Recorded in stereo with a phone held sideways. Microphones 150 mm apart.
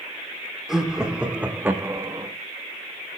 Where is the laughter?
5° right (ahead or behind), 3 m; by 2.3 s 30° right (ahead or behind), 1.4 m.